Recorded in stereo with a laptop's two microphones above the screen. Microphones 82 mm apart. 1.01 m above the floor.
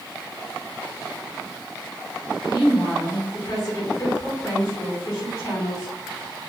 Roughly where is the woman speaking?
Left.